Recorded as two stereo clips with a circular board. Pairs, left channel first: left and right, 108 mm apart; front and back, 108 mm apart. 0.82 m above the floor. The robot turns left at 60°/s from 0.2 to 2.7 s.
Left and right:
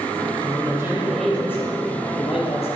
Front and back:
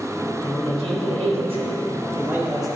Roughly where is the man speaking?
Behind right.